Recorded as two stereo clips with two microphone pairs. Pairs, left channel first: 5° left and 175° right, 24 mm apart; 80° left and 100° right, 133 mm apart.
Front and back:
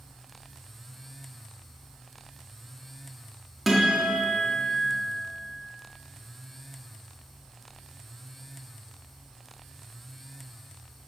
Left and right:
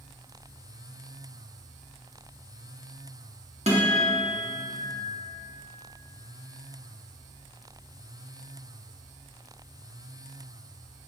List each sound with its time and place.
3.7 s a guitar: 90° right, 1.9 m